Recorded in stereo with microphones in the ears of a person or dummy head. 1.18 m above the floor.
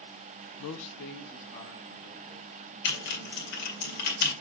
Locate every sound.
0.6 s a man speaking: 80° left, 0.5 m; by 3.9 s 25° left (ahead or behind), 5 m
2.9 s typing on a keyboard: 65° left (ahead or behind), 2 m